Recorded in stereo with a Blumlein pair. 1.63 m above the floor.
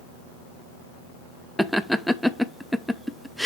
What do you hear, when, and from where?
1.6 s laughter: straight ahead, 0.7 m